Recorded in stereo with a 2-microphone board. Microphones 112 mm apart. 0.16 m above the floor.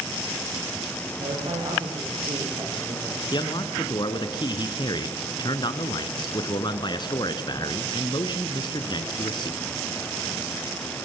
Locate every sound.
1.2 s a man speaking: 60° right (ahead or behind), 6 m; by 3.2 s 50° right (ahead or behind), 5 m
3.3 s a man speaking: 40° left (ahead or behind), 1.6 m